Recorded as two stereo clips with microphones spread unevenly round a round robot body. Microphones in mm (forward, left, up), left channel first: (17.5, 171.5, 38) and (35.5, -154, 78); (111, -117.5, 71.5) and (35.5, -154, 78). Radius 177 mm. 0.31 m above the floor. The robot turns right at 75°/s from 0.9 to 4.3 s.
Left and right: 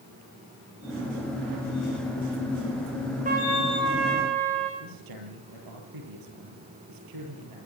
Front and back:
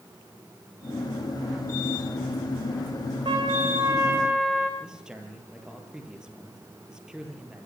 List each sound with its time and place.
3.2 s a trumpet: 155° right, 6 m; by 4.7 s 75° right, 6 m
4.8 s a man speaking: 70° right, 9 m